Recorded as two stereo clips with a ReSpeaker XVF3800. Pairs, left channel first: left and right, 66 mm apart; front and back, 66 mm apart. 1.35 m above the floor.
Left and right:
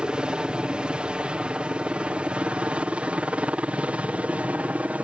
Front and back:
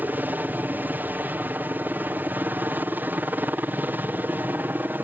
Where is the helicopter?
155° right; by 5.0 s 145° right.